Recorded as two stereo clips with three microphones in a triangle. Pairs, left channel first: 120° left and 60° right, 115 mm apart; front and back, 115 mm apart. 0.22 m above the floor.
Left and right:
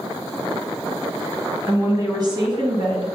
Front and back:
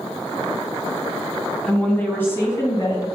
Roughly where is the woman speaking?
Right.